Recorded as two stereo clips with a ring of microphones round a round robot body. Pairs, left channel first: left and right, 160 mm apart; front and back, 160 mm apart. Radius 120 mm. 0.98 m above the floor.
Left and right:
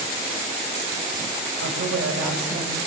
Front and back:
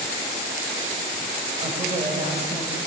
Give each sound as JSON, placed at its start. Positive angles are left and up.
{"t": 1.6, "sound": "a woman speaking", "azimuth_deg": -110, "distance_m": 6.0}